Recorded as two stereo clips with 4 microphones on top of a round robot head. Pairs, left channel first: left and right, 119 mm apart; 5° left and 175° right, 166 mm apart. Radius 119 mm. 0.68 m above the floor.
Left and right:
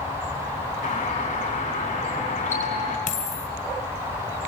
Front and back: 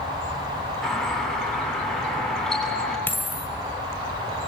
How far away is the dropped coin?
About 2 m.